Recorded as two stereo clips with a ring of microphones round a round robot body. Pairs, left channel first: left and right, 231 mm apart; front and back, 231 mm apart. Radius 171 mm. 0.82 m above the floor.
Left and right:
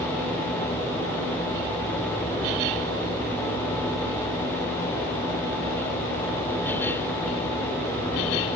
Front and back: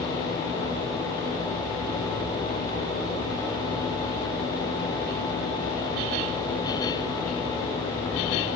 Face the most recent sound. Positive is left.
No sound to turn to.